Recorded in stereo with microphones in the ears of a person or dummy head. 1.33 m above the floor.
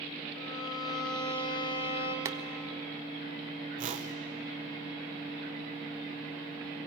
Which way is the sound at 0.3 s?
85° left.